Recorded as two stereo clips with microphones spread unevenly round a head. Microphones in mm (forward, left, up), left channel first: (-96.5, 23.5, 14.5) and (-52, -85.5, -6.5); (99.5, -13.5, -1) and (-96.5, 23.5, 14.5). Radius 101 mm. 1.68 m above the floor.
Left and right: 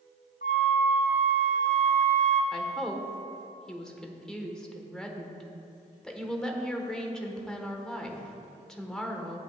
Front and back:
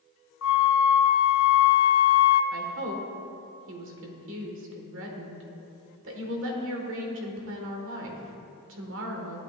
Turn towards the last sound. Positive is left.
turn(degrees=-165)